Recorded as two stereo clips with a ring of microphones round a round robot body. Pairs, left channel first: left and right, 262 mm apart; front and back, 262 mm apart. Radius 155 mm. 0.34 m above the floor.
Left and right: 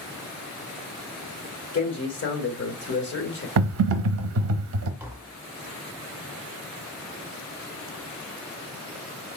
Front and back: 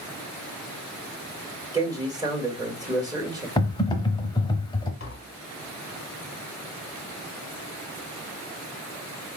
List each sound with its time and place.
1.7 s a man speaking: 110° left, 1.5 m
3.6 s typing on a keyboard: 70° right, 0.6 m
5.0 s tapping: 10° right, 1.1 m